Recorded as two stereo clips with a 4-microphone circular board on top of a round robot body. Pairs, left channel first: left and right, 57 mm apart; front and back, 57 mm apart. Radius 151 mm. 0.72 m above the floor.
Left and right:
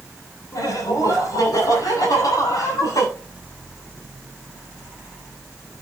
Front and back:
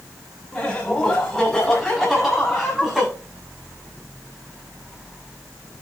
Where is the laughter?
85° left, 6.5 m; by 3.1 s 100° left, 8 m.